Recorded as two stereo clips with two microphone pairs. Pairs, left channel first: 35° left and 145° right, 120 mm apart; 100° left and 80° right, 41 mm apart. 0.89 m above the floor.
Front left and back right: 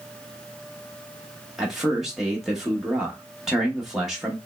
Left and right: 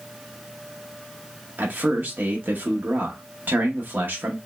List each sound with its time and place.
1.6 s a man speaking: 60° right, 0.9 m